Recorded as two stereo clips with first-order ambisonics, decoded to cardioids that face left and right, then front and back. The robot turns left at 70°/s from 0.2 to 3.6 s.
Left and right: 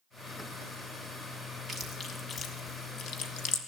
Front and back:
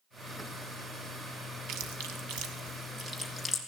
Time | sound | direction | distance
1.7 | chewing | 155° right | 1.7 m